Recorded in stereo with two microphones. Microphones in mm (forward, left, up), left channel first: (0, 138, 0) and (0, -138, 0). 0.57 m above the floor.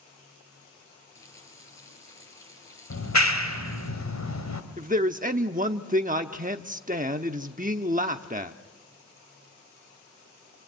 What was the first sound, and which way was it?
A running tap, 10° left (ahead or behind).